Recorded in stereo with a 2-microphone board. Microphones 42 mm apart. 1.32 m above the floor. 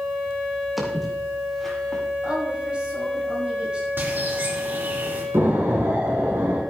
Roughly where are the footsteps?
Centre.